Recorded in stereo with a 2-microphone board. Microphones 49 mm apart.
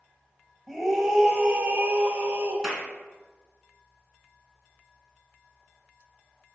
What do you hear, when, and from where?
0.7 s a scream: 5° left (ahead or behind), 1.1 m; by 2.5 s 45° right (ahead or behind), 1.4 m
2.6 s a clap: 5° right (ahead or behind), 1.7 m